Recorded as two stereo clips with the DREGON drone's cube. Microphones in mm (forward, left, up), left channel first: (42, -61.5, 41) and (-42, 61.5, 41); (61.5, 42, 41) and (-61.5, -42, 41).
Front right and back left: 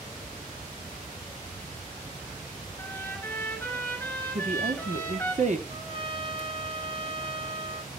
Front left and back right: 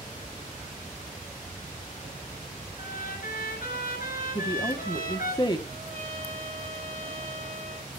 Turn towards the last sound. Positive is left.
turn(degrees=180)